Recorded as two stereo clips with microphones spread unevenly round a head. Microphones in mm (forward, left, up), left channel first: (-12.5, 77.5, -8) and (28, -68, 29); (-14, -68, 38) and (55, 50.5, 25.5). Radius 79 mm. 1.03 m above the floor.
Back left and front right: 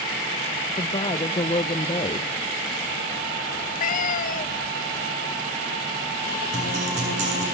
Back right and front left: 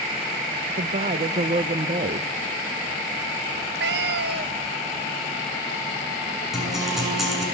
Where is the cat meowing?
65° left, 0.8 m.